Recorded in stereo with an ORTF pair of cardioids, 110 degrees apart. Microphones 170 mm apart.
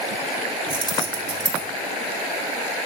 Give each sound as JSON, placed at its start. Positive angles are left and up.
{"t": 0.7, "sound": "keys jangling", "azimuth_deg": -30, "distance_m": 2.5}